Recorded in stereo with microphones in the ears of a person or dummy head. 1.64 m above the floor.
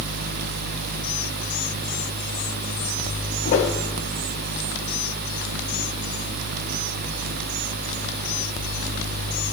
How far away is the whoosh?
About 1.4 m.